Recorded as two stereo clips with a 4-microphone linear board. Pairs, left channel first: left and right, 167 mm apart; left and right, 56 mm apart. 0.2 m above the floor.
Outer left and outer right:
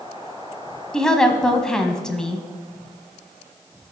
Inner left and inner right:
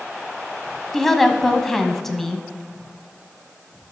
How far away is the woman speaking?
About 1.0 m.